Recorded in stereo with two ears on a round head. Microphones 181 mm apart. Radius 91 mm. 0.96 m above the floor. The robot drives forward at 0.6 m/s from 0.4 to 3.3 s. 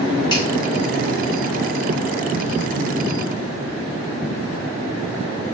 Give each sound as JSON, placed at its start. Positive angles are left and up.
{"t": 0.3, "sound": "a finger snap", "side_deg": 20, "distance_m": 3.5}